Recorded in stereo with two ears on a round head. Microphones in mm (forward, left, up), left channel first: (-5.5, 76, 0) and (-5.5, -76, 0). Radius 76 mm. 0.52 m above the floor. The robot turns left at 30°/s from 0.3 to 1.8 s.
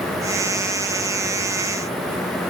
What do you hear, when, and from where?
Only background noise.